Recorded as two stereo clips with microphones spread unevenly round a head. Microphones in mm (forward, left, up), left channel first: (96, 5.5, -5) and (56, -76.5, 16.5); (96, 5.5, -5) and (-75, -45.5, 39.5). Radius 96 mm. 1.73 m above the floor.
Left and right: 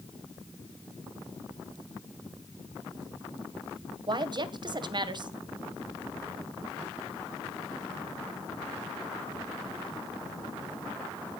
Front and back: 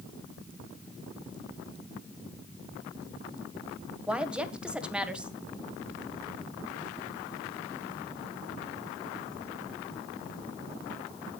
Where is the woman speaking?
80° right, 1.6 m.